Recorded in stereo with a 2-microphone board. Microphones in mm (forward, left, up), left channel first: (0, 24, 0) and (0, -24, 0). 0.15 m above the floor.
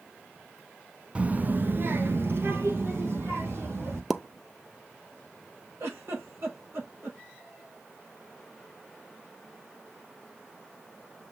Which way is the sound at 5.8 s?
55° right (ahead or behind).